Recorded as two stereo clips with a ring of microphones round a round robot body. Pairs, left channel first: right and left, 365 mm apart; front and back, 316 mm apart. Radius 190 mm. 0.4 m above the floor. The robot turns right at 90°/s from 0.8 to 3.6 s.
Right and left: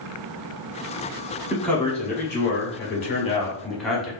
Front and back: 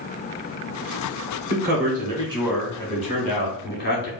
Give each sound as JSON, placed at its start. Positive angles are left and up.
{"t": 1.5, "sound": "a man speaking", "azimuth_deg": 170, "distance_m": 1.1}